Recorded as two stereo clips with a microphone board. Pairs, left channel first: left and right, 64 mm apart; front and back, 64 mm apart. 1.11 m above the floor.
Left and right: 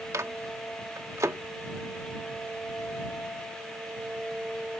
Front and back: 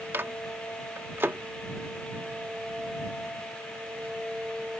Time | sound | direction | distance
0.1 | a microwave | 125° right | ?